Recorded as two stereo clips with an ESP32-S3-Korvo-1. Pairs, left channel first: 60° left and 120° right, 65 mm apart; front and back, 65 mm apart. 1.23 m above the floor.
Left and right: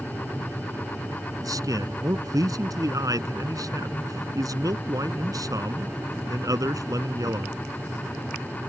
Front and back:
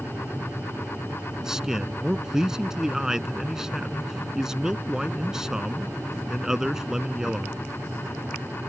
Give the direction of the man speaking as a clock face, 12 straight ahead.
3 o'clock.